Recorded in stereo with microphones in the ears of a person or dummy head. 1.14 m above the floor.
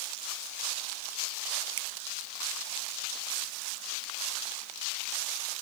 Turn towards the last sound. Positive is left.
turn(degrees=-80)